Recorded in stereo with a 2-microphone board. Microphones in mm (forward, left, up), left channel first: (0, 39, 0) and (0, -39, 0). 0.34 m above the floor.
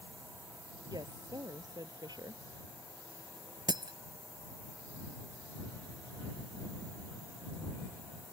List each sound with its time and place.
0.9 s a woman speaking: 65° right (ahead or behind)
3.7 s breaking glass: 75° right (ahead or behind)